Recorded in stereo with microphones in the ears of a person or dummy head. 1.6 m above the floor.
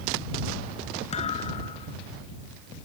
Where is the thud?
40° left (ahead or behind).